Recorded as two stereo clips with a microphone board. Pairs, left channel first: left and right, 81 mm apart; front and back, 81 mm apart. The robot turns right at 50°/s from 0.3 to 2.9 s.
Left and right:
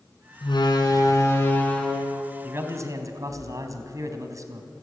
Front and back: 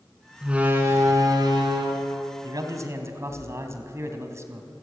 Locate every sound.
0.4 s a door slam: 100° left, 4 m; by 3.4 s 135° right, 4 m
2.4 s a man speaking: 155° right, 2.5 m; by 4.7 s 130° right, 2.5 m